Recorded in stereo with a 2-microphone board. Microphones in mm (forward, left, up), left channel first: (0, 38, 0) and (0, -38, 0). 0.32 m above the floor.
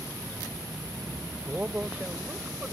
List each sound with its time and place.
1.5 s a man speaking: 20° right (ahead or behind)